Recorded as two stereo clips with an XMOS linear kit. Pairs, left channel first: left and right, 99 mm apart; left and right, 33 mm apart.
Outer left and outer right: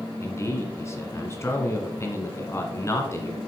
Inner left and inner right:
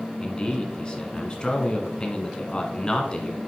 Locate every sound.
0.2 s a man speaking: 30° left (ahead or behind), 1.5 m